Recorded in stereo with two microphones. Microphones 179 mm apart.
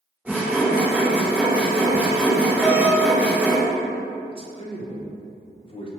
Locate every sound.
0.2 s sawing: 10° right (ahead or behind), 1.8 m
2.6 s a doorbell: 15° right (ahead or behind), 2.0 m
4.3 s a man speaking: 30° left (ahead or behind), 0.7 m